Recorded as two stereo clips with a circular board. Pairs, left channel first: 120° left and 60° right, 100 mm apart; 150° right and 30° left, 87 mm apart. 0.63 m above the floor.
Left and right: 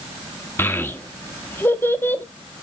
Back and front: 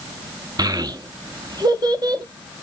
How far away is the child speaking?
About 0.8 m.